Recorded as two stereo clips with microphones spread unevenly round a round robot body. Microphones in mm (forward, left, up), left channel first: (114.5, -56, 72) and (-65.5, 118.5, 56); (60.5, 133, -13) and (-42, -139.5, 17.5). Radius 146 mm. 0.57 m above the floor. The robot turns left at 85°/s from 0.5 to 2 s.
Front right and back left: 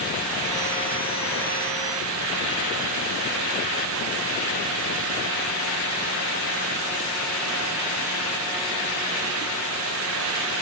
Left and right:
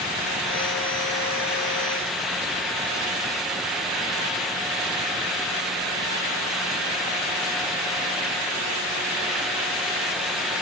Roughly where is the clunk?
I don't hear a clunk.